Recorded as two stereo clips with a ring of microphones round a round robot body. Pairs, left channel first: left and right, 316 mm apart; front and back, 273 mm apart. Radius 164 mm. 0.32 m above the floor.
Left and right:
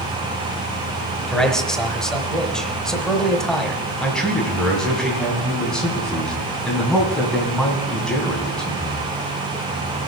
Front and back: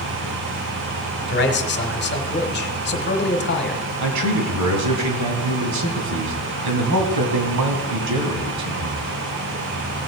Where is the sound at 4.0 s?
Straight behind, 2.5 m.